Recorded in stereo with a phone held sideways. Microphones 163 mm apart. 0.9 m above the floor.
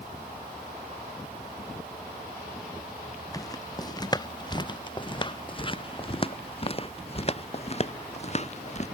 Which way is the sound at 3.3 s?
20° left (ahead or behind).